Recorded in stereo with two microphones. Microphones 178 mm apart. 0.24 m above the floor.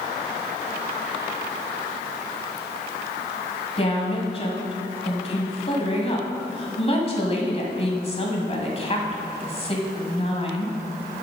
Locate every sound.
3.8 s a woman speaking: 35° left (ahead or behind), 1.7 m